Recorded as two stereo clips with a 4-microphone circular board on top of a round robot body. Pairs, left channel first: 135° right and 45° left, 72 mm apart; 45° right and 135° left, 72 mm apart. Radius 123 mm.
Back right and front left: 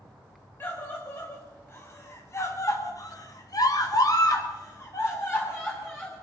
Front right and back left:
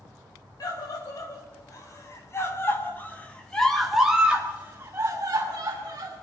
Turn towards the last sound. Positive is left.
turn(degrees=160)